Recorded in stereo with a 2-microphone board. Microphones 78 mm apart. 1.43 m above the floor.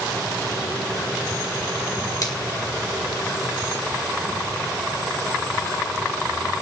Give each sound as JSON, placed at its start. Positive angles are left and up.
{"t": 2.2, "sound": "a finger snap", "side_deg": 50, "distance_m": 1.9}